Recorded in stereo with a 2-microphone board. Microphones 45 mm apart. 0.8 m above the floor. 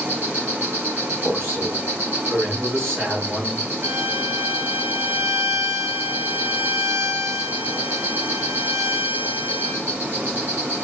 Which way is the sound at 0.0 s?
60° right (ahead or behind).